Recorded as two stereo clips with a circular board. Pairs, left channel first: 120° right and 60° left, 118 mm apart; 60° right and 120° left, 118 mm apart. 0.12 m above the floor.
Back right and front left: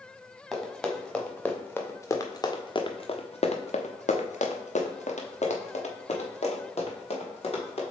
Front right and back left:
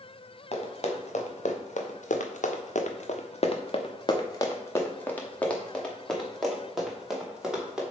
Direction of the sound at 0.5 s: 30° right.